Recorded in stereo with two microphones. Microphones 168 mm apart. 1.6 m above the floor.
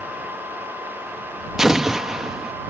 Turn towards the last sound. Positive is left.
turn(degrees=-5)  # may be behind; listen again after turning